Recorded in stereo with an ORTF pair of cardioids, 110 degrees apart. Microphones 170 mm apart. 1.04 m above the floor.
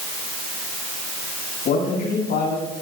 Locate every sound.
1.6 s a man speaking: 60° left, 8 m